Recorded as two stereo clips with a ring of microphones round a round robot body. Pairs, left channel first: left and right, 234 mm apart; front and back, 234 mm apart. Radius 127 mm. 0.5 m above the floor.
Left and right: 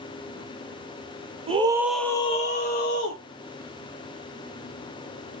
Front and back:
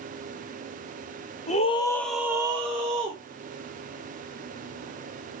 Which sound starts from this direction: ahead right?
A scream, at 1.5 s.